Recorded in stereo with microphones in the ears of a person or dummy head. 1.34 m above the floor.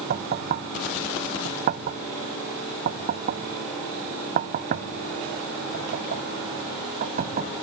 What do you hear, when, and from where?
0.1 s knocking: 45° right (ahead or behind)